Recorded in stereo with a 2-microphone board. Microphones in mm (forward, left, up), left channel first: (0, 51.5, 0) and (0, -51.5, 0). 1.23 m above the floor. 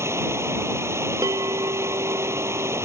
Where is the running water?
25° right (ahead or behind).